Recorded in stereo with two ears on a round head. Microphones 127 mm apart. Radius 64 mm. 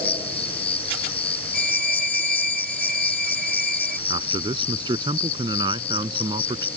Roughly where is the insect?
Left.